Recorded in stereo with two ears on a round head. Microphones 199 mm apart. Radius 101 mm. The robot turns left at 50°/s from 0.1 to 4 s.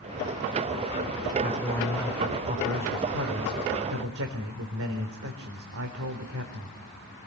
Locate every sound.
1.4 s a man speaking: 30° left, 4 m; by 6.8 s 100° right, 4 m